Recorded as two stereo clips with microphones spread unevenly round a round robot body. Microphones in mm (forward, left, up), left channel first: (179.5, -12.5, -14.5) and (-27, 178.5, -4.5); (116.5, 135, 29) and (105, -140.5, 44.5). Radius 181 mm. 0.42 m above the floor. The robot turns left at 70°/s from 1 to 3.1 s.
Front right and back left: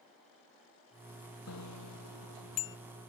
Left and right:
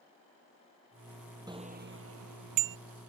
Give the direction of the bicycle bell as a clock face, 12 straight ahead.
1 o'clock.